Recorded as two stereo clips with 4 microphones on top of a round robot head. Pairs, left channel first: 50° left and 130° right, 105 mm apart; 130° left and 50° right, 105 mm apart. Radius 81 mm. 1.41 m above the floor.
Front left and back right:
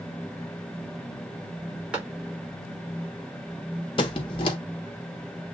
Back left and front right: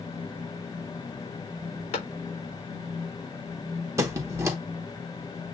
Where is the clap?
150° left, 3.5 m.